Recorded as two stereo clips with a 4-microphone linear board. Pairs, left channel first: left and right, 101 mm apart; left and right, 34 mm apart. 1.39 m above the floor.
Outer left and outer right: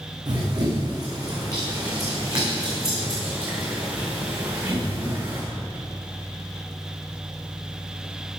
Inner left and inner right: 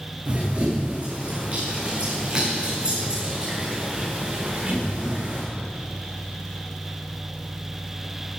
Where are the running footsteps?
45° right (ahead or behind), 6 m; by 5.5 s 25° right (ahead or behind), 8 m.